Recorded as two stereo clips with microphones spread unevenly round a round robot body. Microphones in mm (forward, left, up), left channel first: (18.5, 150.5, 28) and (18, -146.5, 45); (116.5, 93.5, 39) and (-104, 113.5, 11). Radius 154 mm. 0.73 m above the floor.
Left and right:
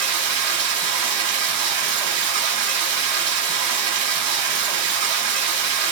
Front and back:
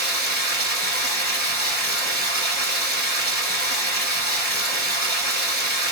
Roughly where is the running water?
Ahead right.